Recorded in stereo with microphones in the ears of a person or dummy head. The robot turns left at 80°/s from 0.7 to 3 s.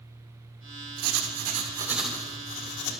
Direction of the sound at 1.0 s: 100° right.